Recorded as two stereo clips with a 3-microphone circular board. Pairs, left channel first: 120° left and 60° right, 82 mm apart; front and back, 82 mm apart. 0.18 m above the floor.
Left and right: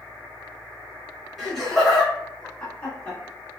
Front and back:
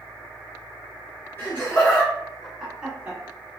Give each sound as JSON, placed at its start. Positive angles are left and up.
{"t": 1.4, "sound": "laughter", "azimuth_deg": 30, "distance_m": 1.4}